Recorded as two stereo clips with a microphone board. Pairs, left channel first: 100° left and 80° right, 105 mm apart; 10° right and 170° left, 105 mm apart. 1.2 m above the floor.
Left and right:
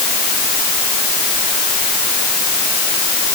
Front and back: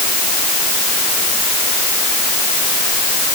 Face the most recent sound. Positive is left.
No sound to turn to.